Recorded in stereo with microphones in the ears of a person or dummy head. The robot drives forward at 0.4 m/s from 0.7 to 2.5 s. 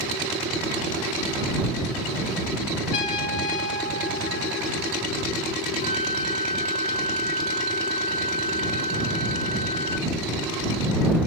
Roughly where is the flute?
Left.